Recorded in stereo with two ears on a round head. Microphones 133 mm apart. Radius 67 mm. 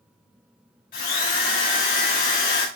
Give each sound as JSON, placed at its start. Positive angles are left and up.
{"t": 0.9, "sound": "a drill", "side_deg": 65, "distance_m": 3.5}